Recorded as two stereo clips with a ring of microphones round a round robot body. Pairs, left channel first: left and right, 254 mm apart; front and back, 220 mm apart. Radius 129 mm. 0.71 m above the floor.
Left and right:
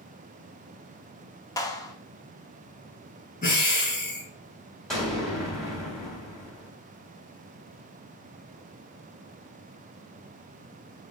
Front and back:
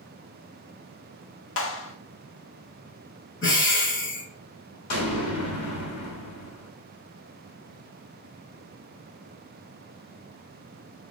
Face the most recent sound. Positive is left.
turn(degrees=0)